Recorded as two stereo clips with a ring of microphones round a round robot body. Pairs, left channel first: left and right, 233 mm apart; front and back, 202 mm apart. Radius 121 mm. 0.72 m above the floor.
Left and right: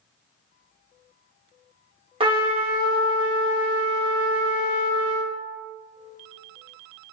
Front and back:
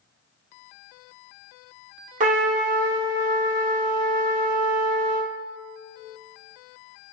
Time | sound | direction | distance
2.2 | a trumpet | 150° right | 0.8 m